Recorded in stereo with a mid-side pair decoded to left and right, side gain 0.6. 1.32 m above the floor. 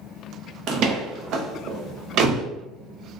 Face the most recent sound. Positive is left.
turn(degrees=-60)